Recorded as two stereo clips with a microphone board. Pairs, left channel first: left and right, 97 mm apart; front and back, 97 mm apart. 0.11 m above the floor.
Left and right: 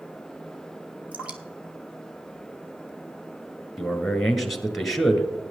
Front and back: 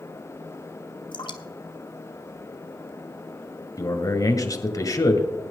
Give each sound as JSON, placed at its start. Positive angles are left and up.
{"t": 1.1, "sound": "dripping", "azimuth_deg": -15, "distance_m": 1.2}
{"t": 3.8, "sound": "a man speaking", "azimuth_deg": 0, "distance_m": 1.7}